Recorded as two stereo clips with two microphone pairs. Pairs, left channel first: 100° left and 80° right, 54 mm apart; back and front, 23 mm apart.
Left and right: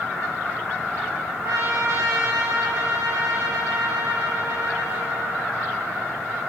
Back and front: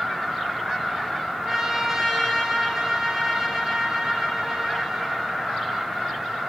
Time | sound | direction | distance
1.4 | a trumpet | 80° right | 4 m